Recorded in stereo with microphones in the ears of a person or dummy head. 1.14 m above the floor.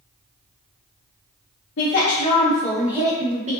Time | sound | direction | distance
1.8 | a woman speaking | 55° left (ahead or behind) | 0.7 m